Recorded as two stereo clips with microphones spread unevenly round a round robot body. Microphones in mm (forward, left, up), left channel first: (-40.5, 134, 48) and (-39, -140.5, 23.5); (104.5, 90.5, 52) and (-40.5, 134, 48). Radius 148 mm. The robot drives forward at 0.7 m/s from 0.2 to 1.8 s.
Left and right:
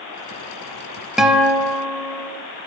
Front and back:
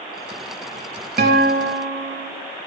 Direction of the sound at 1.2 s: Straight behind.